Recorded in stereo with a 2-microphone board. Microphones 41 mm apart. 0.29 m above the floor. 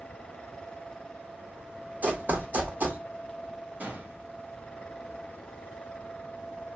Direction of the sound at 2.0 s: 45° right (ahead or behind).